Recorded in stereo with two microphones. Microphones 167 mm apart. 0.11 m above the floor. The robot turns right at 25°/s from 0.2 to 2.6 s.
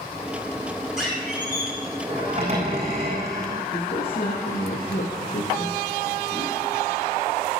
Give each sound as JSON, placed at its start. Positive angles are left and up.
{"t": 1.0, "sound": "a squeak", "azimuth_deg": -175, "distance_m": 5.5}
{"t": 3.7, "sound": "a man speaking", "side_deg": 65, "distance_m": 5.5}